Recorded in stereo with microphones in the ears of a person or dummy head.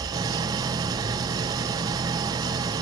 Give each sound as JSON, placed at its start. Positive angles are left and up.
{"t": 0.0, "sound": "an engine running", "side_deg": -20, "distance_m": 0.9}